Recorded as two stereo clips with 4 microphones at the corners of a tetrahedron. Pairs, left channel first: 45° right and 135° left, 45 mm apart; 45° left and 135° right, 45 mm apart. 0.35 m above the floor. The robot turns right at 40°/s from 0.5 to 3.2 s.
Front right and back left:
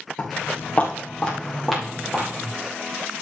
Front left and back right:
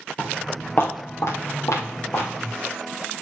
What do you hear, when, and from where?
0.2 s footsteps: 5° left, 4.5 m; by 2.5 s 70° left, 4.5 m